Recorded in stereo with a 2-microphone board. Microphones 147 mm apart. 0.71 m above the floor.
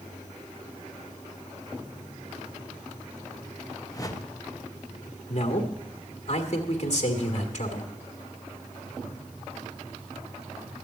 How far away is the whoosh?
About 0.8 m.